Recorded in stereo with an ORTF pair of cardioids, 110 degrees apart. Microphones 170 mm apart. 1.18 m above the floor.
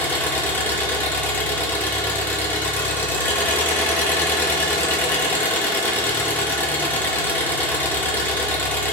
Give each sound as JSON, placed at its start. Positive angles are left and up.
{"t": 0.0, "sound": "an engine running", "azimuth_deg": 10, "distance_m": 1.8}